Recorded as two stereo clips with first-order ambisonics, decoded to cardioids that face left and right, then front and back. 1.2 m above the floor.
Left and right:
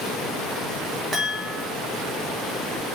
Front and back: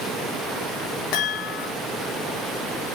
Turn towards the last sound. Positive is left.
turn(degrees=-15)